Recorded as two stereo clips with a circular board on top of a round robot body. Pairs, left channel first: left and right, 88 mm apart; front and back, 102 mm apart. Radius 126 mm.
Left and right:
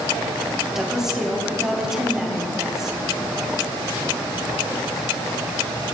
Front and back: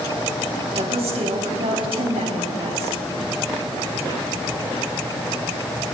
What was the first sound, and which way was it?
A woman speaking, 175° right.